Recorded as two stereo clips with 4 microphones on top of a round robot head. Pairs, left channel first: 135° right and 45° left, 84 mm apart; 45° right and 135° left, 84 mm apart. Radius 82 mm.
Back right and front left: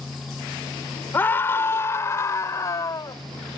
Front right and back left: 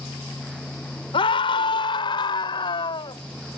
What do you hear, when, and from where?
1.1 s a scream: 65° right; by 3.2 s 80° right